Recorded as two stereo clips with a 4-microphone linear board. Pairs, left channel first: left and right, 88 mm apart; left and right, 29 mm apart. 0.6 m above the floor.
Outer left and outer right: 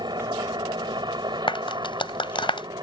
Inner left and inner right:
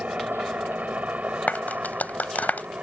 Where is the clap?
80° left.